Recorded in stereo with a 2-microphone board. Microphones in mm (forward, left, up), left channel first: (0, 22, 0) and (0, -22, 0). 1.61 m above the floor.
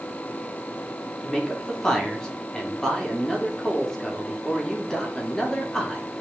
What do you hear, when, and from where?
1.2 s a man speaking: 15° left (ahead or behind), 1.9 m